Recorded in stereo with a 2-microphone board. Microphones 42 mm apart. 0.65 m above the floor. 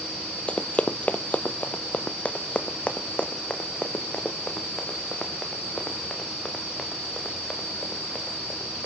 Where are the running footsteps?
30° left (ahead or behind), 0.7 m; by 8.9 s 20° left (ahead or behind), 4.5 m.